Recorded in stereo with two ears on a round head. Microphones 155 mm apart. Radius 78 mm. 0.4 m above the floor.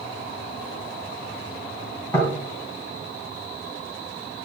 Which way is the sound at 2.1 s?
10° left (ahead or behind).